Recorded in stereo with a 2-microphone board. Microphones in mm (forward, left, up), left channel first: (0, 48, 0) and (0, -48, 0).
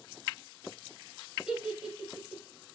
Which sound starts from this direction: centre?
A giggle, at 1.5 s.